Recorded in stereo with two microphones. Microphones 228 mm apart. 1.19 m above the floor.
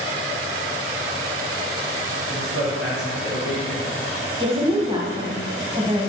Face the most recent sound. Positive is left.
turn(degrees=-20)  # may be behind; listen again after turning